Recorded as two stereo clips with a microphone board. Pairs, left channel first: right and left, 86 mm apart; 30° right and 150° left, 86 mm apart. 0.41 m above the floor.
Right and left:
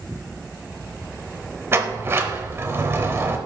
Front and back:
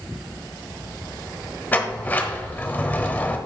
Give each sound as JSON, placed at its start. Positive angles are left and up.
{"t": 1.7, "sound": "a sliding door", "azimuth_deg": 35, "distance_m": 0.8}